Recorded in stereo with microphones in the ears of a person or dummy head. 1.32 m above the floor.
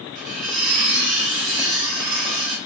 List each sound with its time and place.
0.1 s cutlery clinking: 70° right (ahead or behind), 1.7 m